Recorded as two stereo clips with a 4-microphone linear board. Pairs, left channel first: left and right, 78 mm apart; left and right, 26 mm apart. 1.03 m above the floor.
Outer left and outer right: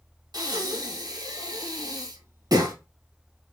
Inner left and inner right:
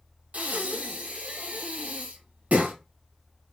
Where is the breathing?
55° right (ahead or behind), 1.2 m.